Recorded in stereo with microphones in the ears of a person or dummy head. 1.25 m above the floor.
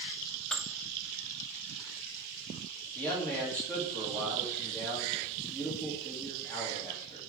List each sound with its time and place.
0.5 s dishes clattering: 5° left (ahead or behind), 0.6 m
3.0 s a man speaking: 5° left (ahead or behind), 3 m